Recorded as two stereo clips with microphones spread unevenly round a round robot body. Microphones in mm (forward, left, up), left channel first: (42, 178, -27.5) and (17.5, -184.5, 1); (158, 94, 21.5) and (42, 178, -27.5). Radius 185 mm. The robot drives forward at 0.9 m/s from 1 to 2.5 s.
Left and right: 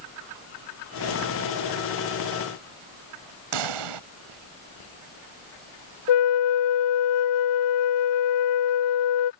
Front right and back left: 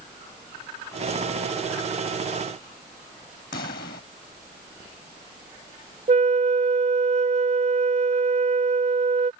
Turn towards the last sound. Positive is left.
turn(degrees=105)